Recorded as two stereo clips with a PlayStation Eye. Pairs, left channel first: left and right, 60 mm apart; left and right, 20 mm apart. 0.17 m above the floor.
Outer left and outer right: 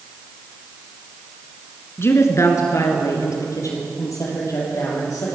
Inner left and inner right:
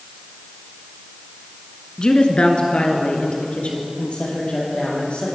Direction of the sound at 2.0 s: 40° left (ahead or behind).